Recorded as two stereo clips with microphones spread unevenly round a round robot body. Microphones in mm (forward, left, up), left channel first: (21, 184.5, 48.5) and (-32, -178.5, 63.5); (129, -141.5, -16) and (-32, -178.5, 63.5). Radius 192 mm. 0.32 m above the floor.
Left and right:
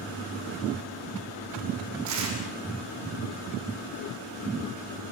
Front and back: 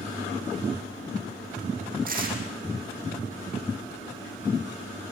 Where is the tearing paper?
140° right, 6 m.